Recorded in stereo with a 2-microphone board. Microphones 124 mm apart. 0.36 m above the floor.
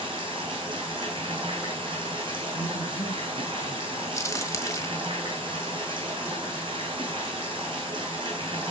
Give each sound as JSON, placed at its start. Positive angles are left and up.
{"t": 0.0, "sound": "running water", "side_deg": -45, "distance_m": 4.0}
{"t": 2.5, "sound": "a man speaking", "side_deg": 60, "distance_m": 2.0}
{"t": 4.2, "sound": "a crack", "side_deg": 25, "distance_m": 1.5}